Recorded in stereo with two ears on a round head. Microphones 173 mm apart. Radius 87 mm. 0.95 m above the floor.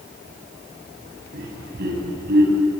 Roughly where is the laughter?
Right.